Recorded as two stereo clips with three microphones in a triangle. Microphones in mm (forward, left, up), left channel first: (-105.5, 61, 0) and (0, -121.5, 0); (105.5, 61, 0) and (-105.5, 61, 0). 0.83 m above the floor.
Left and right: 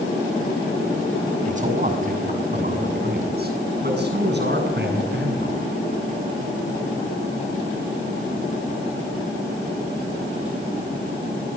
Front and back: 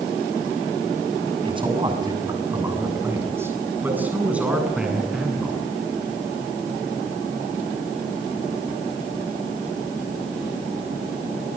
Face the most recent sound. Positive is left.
turn(degrees=-90)